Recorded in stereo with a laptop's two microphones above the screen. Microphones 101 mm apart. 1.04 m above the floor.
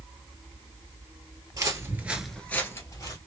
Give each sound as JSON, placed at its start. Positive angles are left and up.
{"t": 1.5, "sound": "footsteps", "side_deg": -35, "distance_m": 1.4}